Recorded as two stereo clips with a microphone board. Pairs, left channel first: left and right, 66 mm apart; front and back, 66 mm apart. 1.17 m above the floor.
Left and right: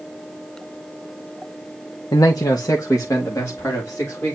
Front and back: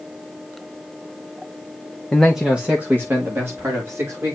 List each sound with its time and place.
2.1 s a man speaking: 80° left, 1.0 m; by 4.4 s 135° left, 4 m